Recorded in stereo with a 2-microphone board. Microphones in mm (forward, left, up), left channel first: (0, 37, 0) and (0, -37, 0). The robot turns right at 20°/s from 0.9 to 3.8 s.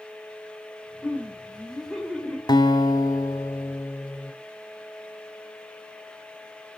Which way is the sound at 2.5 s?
65° left (ahead or behind).